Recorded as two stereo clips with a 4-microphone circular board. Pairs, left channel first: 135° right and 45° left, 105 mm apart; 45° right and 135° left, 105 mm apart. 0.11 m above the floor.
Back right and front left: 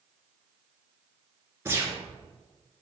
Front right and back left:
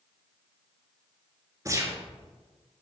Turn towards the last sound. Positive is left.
turn(degrees=95)